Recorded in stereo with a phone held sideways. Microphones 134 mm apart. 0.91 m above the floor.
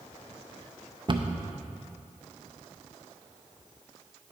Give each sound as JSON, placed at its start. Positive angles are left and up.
{"t": 1.1, "sound": "a cupboard door", "side_deg": -40, "distance_m": 0.5}